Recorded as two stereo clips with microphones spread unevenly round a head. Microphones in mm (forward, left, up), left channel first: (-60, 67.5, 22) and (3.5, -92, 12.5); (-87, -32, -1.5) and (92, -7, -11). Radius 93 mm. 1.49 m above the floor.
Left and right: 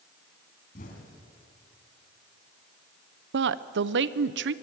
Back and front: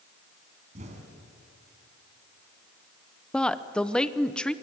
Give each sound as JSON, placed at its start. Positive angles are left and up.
{"t": 0.8, "sound": "an explosion", "azimuth_deg": 65, "distance_m": 4.0}
{"t": 3.3, "sound": "a woman speaking", "azimuth_deg": -85, "distance_m": 0.8}